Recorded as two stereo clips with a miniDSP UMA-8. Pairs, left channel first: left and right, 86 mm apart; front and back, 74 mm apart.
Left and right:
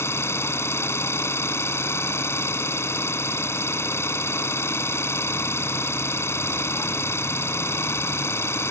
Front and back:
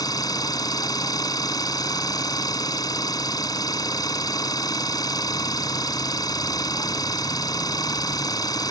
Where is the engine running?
30° left.